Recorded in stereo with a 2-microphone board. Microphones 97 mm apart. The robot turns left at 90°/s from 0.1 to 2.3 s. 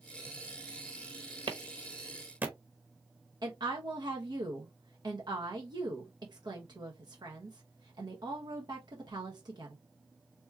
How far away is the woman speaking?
About 1.2 m.